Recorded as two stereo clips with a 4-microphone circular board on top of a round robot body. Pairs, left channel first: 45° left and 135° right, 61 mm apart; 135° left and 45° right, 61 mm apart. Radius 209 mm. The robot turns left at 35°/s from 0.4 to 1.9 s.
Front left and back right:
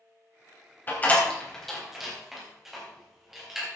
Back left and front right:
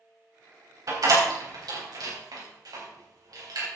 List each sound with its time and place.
0.9 s a door slam: 15° right, 4 m; by 3.7 s 50° right, 4 m